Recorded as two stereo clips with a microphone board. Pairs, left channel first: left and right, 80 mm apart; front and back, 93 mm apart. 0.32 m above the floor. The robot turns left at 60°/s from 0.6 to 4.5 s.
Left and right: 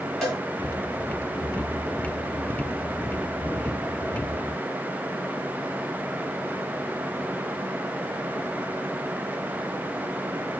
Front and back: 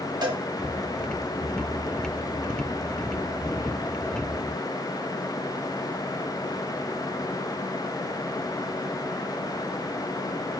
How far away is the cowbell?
About 1.8 m.